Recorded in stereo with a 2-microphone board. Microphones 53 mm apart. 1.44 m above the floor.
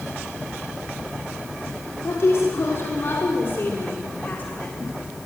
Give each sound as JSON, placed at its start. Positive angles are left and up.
{"t": 2.0, "sound": "a woman speaking", "side_deg": 60, "distance_m": 5.0}